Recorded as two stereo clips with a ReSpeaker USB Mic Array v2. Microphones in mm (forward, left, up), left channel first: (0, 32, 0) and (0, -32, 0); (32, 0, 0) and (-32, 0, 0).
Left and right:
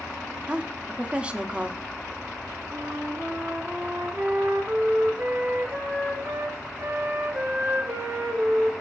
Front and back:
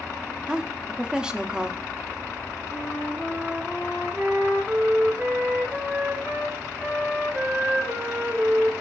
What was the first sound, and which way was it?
A woman speaking, 125° right.